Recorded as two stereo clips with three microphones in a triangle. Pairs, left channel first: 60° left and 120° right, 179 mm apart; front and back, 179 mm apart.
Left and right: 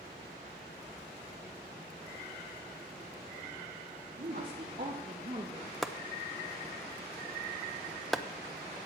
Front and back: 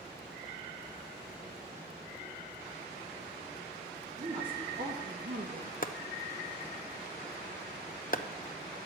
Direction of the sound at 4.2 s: 140° right.